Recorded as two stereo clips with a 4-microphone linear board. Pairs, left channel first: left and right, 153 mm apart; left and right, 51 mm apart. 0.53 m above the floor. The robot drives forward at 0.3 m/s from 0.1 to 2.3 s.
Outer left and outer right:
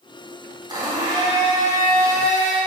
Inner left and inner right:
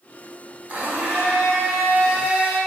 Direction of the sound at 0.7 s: 30° right (ahead or behind).